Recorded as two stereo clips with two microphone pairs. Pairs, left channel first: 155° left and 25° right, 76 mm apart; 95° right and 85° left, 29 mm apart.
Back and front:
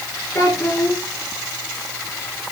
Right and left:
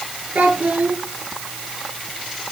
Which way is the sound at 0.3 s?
110° left.